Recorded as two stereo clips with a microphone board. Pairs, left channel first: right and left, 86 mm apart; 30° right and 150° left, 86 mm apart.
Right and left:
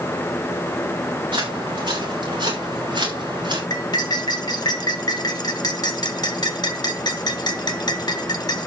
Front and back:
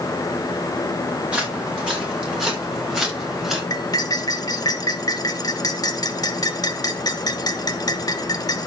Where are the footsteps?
75° left, 5 m; by 3.6 s 65° left, 6.5 m.